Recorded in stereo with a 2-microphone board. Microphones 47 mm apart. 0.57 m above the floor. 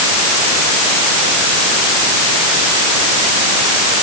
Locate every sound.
Only background noise.